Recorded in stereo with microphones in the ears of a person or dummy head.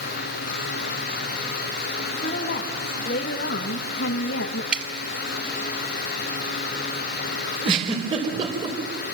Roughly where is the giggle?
Right.